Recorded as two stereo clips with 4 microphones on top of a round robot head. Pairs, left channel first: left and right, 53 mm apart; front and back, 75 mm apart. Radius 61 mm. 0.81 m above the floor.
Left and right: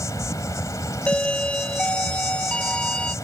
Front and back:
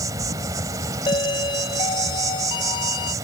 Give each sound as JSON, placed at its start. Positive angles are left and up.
{"t": 0.0, "sound": "an insect", "azimuth_deg": 145}
{"t": 1.1, "sound": "a doorbell", "azimuth_deg": 20}